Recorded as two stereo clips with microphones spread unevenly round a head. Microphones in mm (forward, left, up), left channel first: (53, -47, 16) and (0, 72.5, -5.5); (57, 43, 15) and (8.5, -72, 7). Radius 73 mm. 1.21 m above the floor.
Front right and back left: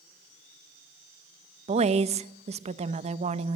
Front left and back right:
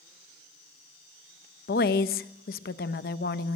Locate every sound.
1.7 s a woman speaking: 75° left, 1.2 m